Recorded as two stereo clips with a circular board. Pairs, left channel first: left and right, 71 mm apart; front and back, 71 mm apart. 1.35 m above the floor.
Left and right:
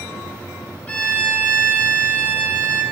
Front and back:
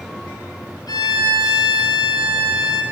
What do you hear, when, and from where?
0.9 s a violin: 20° left, 0.6 m